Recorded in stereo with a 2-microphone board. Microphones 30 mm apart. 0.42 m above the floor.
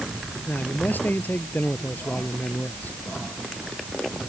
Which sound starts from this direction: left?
A man speaking, at 0.5 s.